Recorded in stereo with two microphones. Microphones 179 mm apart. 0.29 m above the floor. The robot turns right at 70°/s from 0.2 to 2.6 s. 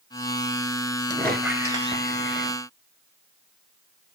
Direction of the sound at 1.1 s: 160° left.